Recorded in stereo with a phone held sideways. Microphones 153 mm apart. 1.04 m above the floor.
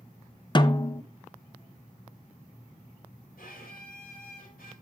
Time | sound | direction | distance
0.6 | a snare drum | 30° left (ahead or behind) | 0.6 m
3.4 | a violin | 80° left | 5.5 m